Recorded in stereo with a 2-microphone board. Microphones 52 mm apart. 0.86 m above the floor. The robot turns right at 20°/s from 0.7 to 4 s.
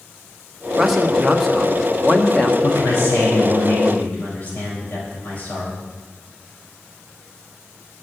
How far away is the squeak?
I don't hear a squeak.